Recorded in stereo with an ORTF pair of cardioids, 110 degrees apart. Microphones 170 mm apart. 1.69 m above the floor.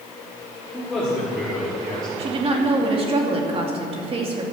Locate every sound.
0.7 s a man speaking: 5° left, 5 m
2.2 s a woman speaking: 35° right, 2.5 m